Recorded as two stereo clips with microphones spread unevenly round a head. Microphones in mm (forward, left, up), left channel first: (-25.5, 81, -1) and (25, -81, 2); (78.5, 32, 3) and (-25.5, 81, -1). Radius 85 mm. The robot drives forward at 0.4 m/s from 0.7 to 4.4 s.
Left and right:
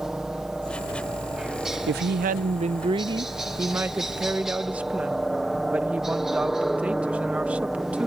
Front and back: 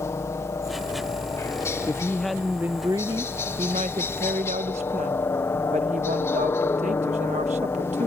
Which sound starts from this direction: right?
A woman speaking, at 1.9 s.